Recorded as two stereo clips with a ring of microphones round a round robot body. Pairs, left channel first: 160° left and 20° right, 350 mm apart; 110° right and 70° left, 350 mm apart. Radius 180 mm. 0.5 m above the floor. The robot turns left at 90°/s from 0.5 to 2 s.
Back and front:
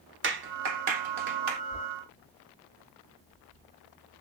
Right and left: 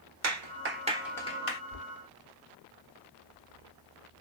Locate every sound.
0.2 s a clap: 30° left, 1.4 m; by 1.6 s 70° right, 1.4 m
1.7 s knocking: 55° right, 1.3 m; by 4.2 s 80° right, 1.3 m